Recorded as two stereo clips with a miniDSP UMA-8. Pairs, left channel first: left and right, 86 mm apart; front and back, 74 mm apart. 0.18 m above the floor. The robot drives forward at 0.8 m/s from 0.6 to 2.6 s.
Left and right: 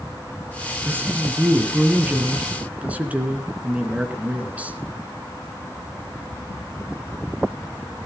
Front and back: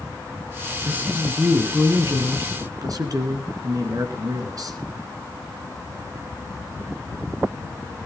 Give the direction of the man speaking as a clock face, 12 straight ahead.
4 o'clock.